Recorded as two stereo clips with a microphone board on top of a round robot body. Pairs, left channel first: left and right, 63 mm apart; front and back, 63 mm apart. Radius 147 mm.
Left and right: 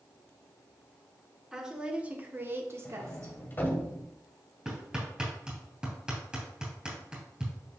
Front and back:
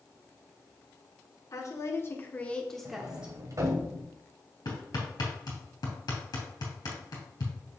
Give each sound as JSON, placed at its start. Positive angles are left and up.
{"t": 1.5, "sound": "a woman speaking", "azimuth_deg": -10, "distance_m": 1.9}
{"t": 2.9, "sound": "a sliding door", "azimuth_deg": 150, "distance_m": 1.6}
{"t": 4.7, "sound": "hammering", "azimuth_deg": -15, "distance_m": 3.0}